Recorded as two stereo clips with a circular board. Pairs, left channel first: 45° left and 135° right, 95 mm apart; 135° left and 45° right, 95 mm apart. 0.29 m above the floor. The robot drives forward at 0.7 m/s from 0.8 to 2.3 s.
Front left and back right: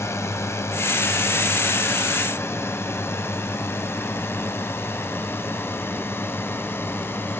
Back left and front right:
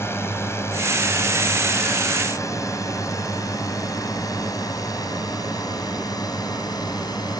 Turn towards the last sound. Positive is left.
turn(degrees=105)